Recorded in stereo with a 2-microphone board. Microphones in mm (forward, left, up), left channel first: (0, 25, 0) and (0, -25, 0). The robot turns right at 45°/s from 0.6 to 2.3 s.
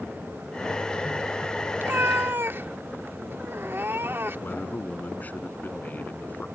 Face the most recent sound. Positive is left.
turn(degrees=35)  # may be behind; listen again after turning